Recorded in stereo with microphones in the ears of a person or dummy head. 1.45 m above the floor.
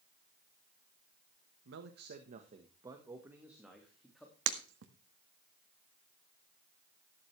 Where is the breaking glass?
70° right (ahead or behind), 1.6 m.